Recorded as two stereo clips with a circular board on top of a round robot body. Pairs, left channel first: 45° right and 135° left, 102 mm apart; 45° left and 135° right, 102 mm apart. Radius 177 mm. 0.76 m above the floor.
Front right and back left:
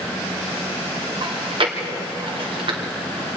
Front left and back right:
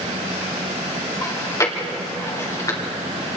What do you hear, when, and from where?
1.2 s chewing: 105° left, 2.5 m